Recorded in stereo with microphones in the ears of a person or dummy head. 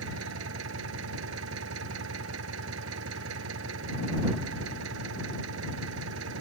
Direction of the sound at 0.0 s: 80° right.